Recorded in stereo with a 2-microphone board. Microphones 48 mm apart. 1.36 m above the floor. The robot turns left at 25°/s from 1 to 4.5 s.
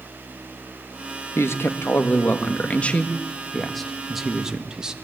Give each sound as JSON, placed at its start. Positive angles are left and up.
{"t": 1.4, "sound": "a man speaking", "azimuth_deg": 65, "distance_m": 1.6}